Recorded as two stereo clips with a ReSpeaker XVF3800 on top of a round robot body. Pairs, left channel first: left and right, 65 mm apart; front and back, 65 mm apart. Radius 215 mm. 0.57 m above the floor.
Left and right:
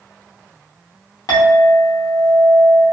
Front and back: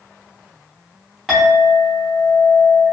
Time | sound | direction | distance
1.3 | a clink | 90° left | 1.0 m